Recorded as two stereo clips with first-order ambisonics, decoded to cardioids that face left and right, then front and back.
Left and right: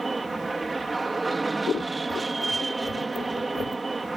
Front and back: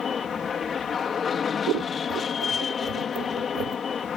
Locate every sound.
0.0 s an aircraft: 30° right
1.7 s scissors: 155° left